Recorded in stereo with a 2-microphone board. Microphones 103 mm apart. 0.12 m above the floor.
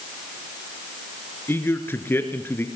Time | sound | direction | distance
1.5 | a man speaking | 20° left (ahead or behind) | 2 m